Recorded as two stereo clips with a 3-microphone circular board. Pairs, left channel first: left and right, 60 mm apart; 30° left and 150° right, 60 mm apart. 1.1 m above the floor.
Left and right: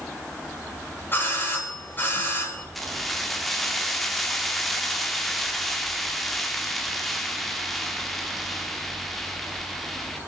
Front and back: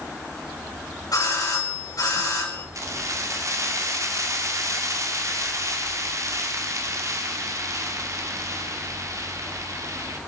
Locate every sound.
1.1 s a doorbell: 35° left, 4.5 m
2.8 s keys jangling: 175° left, 1.8 m